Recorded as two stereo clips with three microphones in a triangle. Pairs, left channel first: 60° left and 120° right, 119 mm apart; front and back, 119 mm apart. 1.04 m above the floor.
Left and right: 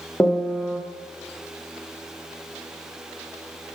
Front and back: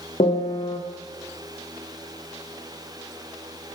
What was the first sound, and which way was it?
A piano, 15° right.